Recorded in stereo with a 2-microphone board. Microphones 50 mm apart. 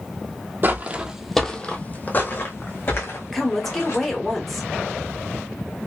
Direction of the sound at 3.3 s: 5° left (ahead or behind).